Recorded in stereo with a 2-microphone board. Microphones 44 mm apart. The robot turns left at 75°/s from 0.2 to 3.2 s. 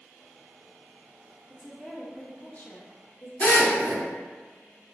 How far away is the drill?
About 1.3 m.